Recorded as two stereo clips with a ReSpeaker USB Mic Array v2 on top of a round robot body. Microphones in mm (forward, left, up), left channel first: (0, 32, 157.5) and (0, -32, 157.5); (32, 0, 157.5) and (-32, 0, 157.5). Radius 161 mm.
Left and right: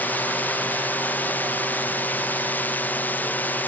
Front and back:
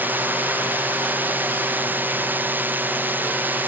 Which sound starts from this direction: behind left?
A drone, at 0.0 s.